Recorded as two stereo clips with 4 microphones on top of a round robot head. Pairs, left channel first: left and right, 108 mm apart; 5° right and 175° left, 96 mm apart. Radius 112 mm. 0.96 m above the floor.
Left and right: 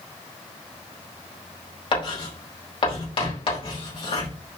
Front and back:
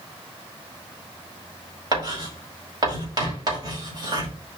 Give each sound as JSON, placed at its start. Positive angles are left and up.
{"t": 1.9, "sound": "writing", "azimuth_deg": 130, "distance_m": 4.5}